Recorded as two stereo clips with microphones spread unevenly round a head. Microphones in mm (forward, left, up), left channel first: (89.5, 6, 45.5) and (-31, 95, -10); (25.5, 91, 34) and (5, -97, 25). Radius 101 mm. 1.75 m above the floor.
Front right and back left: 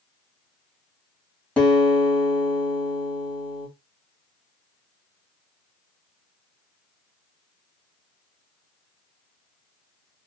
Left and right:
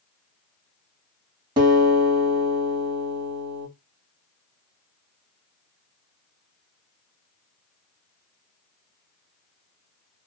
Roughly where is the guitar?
Ahead right.